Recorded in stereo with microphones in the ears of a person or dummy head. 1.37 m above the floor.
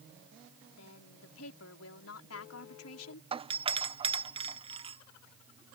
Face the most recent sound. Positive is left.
turn(degrees=-25)  # may be behind; listen again after turning